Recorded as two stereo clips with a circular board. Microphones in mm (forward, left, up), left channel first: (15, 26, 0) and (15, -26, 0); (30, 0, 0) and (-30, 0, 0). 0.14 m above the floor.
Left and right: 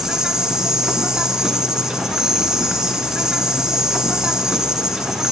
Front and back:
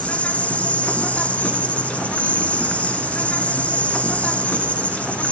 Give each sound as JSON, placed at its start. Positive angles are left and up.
{"t": 0.0, "sound": "an insect", "azimuth_deg": -30, "distance_m": 2.0}